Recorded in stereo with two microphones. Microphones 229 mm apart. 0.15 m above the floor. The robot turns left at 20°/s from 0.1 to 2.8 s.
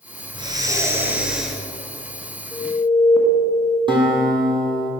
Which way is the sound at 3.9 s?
20° right (ahead or behind).